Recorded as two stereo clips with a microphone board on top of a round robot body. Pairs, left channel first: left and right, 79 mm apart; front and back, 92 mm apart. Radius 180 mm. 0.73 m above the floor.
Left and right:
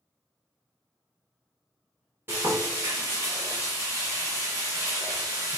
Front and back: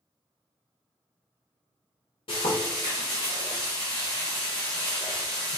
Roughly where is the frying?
Ahead right.